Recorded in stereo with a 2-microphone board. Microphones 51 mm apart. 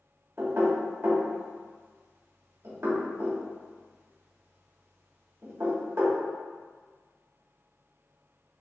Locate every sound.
0.4 s knocking: 65° right (ahead or behind), 1.3 m